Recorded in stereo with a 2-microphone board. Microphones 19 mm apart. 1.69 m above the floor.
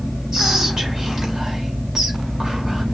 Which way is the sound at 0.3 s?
20° right (ahead or behind).